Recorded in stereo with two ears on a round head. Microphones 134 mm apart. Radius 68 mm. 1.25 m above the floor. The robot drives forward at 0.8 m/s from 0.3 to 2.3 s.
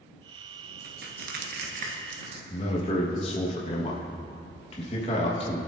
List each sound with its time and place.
0.8 s crushing: 65° right (ahead or behind), 1.1 m; by 2.4 s 45° right (ahead or behind), 1.4 m
2.5 s a man speaking: 40° left (ahead or behind), 1.4 m